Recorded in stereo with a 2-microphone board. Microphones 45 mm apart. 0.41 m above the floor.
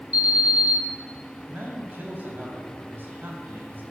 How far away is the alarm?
About 4.5 m.